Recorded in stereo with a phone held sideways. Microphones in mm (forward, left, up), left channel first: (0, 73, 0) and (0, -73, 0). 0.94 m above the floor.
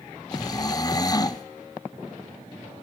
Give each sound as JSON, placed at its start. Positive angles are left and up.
{"t": 0.3, "sound": "snoring", "side_deg": 25, "distance_m": 0.6}